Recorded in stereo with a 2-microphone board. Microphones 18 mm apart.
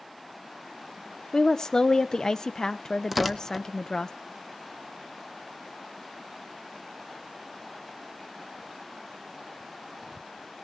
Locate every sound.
1.3 s a woman speaking: 35° left (ahead or behind), 0.6 m
3.1 s tearing paper: 10° right (ahead or behind), 0.8 m